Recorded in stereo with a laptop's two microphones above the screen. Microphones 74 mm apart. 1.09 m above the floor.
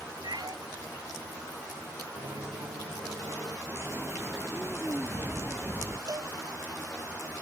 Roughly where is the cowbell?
Right.